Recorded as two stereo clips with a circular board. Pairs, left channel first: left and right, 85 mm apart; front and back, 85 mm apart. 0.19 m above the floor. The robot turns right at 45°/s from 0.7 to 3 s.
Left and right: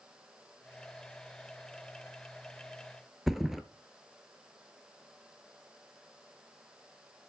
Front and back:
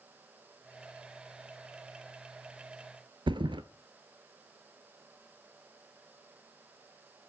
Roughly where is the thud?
Behind.